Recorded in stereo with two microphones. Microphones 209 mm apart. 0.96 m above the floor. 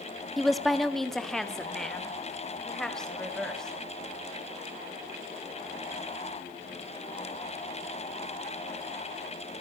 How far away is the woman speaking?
About 1.0 m.